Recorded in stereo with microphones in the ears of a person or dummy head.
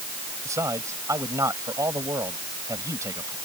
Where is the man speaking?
15° right (ahead or behind).